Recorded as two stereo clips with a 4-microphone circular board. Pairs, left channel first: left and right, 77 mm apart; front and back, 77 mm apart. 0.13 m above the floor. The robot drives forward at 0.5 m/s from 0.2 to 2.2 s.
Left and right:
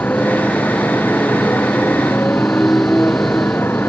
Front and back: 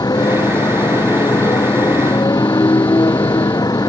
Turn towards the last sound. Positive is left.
turn(degrees=30)